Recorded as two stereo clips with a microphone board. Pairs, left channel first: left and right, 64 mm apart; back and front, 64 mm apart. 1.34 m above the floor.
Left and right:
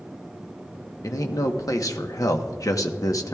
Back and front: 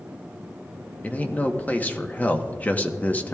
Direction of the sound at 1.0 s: 115° left.